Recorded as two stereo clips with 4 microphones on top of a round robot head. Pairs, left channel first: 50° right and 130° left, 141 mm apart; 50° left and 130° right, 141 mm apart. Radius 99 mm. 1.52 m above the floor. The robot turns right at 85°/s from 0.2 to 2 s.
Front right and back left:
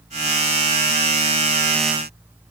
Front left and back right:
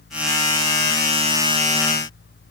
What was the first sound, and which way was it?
Only background noise.